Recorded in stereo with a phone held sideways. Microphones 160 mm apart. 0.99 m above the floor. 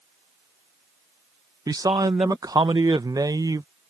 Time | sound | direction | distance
1.7 | a man speaking | 25° right (ahead or behind) | ?